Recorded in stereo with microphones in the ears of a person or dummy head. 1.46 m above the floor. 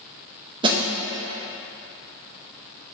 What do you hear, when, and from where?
0.6 s a snare drum: 25° right (ahead or behind), 0.8 m